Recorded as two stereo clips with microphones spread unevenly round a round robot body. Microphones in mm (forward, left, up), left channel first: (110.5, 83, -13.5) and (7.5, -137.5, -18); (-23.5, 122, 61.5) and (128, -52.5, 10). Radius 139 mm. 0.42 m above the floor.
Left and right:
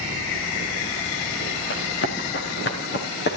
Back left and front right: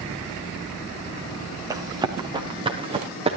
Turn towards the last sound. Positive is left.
turn(degrees=15)